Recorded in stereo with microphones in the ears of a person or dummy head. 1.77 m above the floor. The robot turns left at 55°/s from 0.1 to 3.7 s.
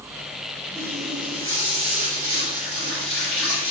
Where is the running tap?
15° left, 1.4 m; by 3.7 s 145° right, 1.4 m.